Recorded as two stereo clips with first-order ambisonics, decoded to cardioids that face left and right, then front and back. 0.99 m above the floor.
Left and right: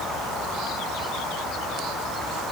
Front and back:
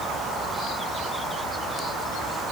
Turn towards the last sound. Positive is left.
No sound to turn to.